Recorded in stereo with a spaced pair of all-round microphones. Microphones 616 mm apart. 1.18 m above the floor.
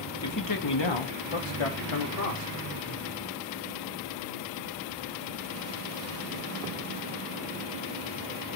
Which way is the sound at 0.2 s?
25° left (ahead or behind).